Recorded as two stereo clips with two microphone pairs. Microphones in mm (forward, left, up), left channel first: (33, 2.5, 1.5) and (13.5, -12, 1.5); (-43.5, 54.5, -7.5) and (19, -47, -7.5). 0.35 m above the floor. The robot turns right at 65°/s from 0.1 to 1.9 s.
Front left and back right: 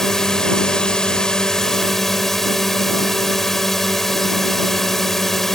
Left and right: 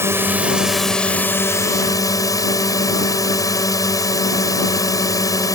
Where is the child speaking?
No child speaking in this recording.